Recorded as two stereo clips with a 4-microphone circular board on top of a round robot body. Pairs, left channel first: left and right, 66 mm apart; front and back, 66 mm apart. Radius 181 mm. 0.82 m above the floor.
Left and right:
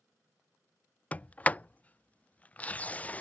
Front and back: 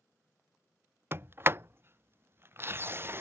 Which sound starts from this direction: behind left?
A sliding door, at 1.1 s.